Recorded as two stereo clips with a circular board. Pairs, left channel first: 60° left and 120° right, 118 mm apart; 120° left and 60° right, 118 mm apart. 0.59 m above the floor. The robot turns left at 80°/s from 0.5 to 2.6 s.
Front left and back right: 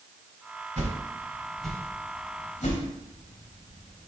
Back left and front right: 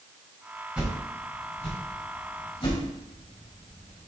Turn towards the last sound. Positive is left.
turn(degrees=70)